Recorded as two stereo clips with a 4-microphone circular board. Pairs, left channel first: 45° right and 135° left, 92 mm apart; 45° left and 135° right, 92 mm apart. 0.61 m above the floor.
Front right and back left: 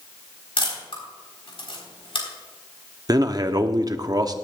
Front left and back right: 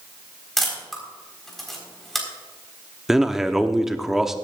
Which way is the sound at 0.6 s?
45° right.